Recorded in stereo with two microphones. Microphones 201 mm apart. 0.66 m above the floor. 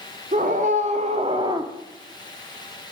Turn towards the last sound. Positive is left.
turn(degrees=-15)  # may be behind; listen again after turning